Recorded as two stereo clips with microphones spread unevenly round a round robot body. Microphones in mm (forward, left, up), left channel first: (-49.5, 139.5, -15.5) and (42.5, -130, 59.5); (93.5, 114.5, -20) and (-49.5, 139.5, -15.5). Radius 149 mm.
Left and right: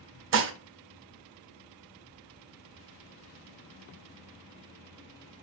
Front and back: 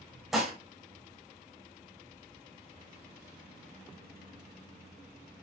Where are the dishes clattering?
100° right, 0.6 m.